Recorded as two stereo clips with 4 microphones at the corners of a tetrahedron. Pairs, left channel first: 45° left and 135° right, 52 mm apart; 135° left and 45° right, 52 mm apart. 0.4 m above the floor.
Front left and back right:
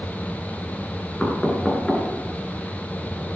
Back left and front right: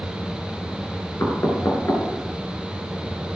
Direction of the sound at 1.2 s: 125° left.